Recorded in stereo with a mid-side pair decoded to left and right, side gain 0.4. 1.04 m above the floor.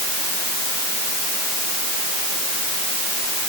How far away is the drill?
No drill in this recording.